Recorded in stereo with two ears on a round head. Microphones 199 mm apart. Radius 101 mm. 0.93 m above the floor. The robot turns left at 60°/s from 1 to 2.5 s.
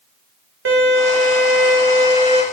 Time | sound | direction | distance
0.7 | a violin | 65° right | 1.7 m